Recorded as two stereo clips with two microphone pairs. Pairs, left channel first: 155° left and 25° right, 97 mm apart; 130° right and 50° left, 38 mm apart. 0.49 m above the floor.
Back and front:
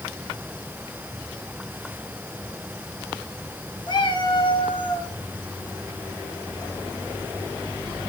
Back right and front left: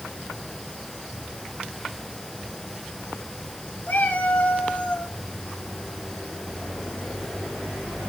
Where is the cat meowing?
165° right, 1.4 m; by 5.1 s straight behind, 1.9 m.